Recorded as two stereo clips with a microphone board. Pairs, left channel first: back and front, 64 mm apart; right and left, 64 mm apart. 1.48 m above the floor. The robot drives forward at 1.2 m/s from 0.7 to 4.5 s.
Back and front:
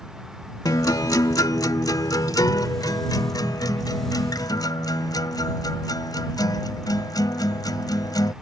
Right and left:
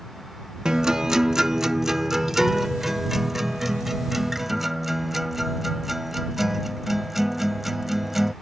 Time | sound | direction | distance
0.7 | a guitar | 170° left | ?